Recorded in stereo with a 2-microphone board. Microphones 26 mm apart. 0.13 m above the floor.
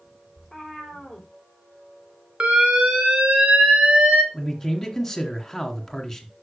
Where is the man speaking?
10° left (ahead or behind), 1.6 m.